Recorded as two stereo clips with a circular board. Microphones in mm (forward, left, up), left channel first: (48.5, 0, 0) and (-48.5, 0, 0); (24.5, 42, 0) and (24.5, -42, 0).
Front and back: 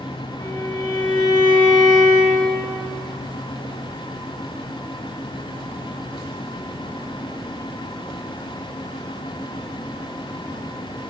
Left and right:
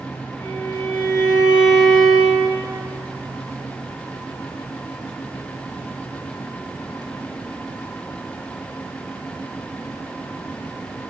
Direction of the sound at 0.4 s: 50° left.